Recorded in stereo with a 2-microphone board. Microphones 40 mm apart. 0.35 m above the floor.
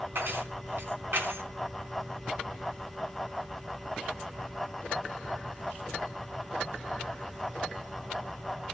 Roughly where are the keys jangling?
Right.